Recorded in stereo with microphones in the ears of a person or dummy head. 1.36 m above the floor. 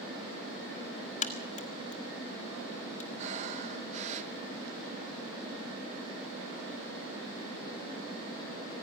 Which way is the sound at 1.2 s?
45° left (ahead or behind).